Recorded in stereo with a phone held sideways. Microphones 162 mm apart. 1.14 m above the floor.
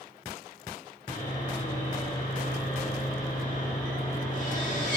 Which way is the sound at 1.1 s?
50° left (ahead or behind).